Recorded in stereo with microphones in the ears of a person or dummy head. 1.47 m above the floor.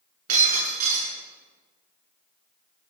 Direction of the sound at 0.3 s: 45° right (ahead or behind).